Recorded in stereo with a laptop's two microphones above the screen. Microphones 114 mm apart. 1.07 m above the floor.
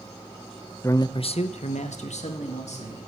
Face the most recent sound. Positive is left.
turn(degrees=75)  # may be behind; listen again after turning